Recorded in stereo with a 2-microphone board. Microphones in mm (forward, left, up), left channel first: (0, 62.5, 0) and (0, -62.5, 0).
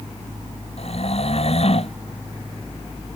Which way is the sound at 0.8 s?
55° left (ahead or behind).